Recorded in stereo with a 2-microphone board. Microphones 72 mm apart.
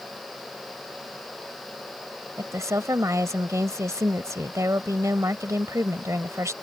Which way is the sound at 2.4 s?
45° right (ahead or behind).